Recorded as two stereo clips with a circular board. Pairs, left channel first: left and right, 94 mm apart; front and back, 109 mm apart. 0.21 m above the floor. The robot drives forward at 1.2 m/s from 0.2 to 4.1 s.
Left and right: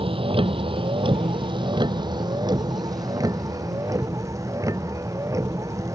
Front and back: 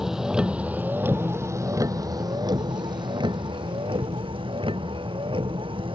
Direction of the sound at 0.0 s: 95° right.